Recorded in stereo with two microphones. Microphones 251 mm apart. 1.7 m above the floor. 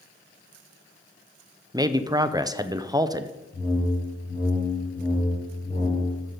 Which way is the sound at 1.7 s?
15° right (ahead or behind).